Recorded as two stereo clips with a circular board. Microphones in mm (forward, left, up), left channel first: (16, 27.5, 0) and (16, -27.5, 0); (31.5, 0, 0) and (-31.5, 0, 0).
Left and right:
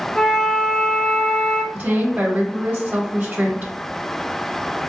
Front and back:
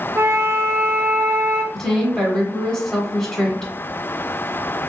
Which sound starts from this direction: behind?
A flute, at 0.1 s.